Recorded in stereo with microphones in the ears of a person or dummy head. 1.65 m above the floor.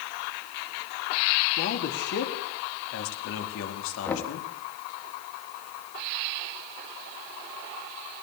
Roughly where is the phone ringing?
No phone ringing in this recording.